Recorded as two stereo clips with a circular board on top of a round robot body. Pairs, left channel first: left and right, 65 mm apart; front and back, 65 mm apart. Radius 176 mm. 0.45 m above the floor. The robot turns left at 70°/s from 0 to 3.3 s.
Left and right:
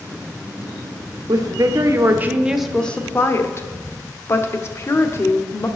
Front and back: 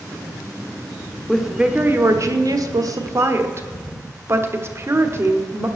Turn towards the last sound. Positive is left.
turn(degrees=135)